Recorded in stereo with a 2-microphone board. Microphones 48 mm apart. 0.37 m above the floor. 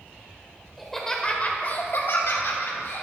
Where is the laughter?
5° right (ahead or behind), 1.5 m; by 3.0 s 60° left (ahead or behind), 3.5 m.